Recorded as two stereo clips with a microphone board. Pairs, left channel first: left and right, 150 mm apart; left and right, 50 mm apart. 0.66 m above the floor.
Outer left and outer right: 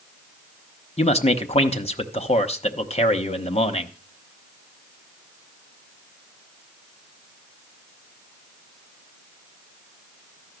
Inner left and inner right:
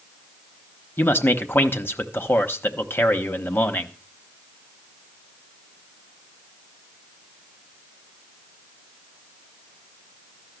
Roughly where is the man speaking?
Left.